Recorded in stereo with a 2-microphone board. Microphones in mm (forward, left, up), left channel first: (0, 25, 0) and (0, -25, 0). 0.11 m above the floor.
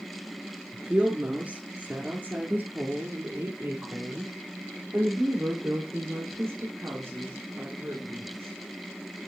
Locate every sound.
0.7 s a woman speaking: 25° right (ahead or behind), 1.3 m; by 8.5 s 60° right (ahead or behind), 6 m